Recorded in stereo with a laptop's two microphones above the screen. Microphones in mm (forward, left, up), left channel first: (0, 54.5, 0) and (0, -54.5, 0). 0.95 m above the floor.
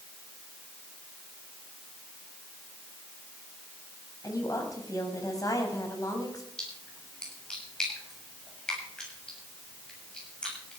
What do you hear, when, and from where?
4.2 s a woman speaking: 35° left (ahead or behind), 5 m
6.6 s a splash: 10° left (ahead or behind), 8 m